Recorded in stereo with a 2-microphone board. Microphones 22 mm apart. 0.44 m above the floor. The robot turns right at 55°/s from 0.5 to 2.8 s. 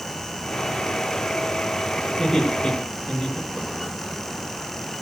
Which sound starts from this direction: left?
Laughter, at 2.2 s.